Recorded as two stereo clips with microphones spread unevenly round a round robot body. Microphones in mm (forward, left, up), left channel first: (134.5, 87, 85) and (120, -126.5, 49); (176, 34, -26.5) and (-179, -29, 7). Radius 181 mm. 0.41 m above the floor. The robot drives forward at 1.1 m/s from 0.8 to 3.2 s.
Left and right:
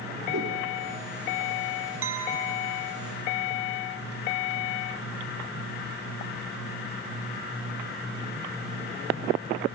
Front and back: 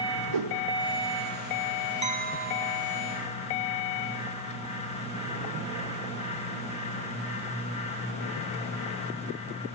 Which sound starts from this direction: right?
A clink, at 2.0 s.